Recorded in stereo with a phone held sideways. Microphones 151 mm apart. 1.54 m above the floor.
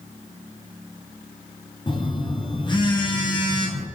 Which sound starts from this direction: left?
A phone buzzing, at 1.9 s.